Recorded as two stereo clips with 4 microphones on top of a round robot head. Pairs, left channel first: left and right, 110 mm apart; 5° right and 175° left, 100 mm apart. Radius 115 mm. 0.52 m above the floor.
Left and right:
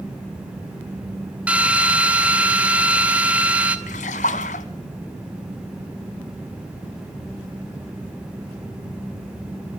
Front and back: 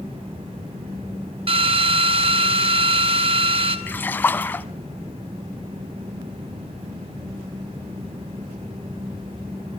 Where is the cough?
I don't hear a cough.